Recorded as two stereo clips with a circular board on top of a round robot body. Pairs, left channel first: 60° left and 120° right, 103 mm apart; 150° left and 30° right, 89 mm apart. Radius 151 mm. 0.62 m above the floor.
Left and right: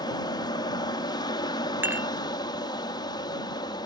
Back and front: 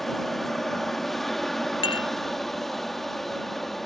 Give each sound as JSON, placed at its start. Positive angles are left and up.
{"t": 0.0, "sound": "an aircraft", "azimuth_deg": 65}
{"t": 1.8, "sound": "dishes clattering", "azimuth_deg": 170}